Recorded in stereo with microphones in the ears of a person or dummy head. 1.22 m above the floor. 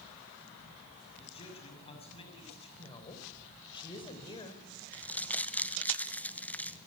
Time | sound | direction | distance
1.2 | a man speaking | 35° left (ahead or behind) | 7 m
2.8 | a woman speaking | 30° left (ahead or behind) | 4.5 m
4.9 | crumpling | 10° left (ahead or behind) | 1.1 m